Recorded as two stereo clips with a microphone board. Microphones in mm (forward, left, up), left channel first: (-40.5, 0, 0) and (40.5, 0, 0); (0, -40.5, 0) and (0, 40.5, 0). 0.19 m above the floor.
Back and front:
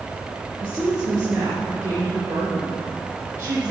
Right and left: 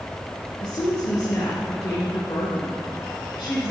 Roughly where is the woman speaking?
Ahead right.